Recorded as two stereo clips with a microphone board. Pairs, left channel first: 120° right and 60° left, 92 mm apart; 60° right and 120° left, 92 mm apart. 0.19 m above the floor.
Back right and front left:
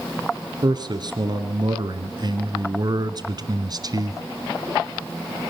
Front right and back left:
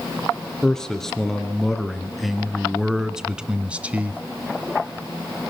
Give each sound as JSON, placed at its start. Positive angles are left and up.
{"t": 0.6, "sound": "a man speaking", "azimuth_deg": 25, "distance_m": 2.5}